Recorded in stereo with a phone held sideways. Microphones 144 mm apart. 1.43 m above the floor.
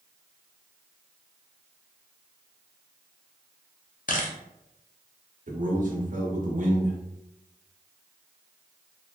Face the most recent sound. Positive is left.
turn(degrees=-65)  # may be behind; listen again after turning